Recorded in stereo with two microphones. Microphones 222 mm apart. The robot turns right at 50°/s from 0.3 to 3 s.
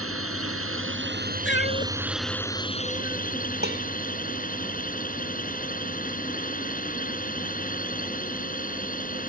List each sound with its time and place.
0.0 s a drone: 95° right; by 9.3 s 40° left
1.4 s a cat meowing: 60° left (ahead or behind); by 3.2 s 20° right (ahead or behind)
3.6 s dishes clattering: 50° right (ahead or behind)